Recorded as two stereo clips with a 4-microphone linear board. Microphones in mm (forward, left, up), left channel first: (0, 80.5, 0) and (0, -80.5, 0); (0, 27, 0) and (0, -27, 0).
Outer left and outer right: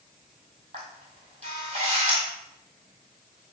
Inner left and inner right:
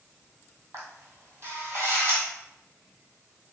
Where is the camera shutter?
45° right (ahead or behind), 1.7 m.